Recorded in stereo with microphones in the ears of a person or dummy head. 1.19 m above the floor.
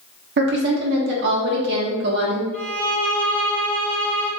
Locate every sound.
0.4 s a woman speaking: 50° right (ahead or behind), 1.1 m
2.5 s a violin: 20° left (ahead or behind), 1.3 m